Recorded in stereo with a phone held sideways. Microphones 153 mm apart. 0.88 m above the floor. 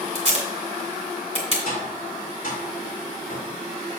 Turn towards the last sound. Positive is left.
turn(degrees=70)  # may be behind; listen again after turning